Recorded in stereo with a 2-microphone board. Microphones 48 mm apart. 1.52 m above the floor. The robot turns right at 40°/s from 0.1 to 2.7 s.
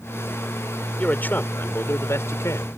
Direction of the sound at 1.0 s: 30° left.